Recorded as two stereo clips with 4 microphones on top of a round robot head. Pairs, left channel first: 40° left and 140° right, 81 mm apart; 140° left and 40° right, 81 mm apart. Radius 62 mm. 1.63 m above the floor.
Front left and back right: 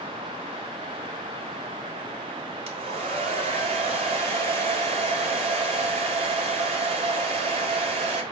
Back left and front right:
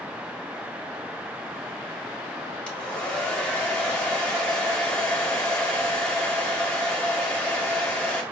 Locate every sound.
2.7 s a hair dryer: 140° right, 1.7 m